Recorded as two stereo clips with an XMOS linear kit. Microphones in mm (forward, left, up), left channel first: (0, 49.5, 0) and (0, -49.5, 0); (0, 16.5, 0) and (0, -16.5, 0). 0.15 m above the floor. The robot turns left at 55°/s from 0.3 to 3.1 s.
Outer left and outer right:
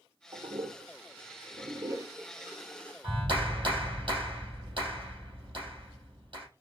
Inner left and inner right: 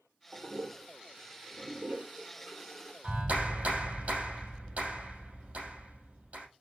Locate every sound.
0.3 s a toilet flushing: 50° right (ahead or behind), 0.6 m; by 2.9 s 15° left (ahead or behind), 0.6 m
3.0 s a clap: 60° right (ahead or behind), 3 m; by 6.5 s 55° right (ahead or behind), 3 m